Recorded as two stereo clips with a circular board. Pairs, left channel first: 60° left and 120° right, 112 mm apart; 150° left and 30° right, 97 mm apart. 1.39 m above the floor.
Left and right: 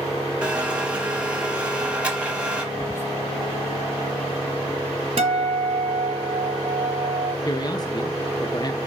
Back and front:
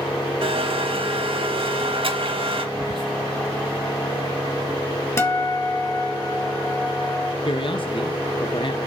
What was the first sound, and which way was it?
A blender, 40° right.